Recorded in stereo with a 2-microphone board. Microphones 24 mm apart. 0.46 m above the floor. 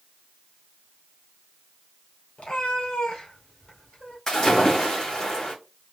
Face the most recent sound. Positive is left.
turn(degrees=25)  # may be behind; listen again after turning